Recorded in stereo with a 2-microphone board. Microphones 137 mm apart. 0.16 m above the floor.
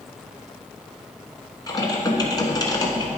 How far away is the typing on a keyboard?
About 1.1 m.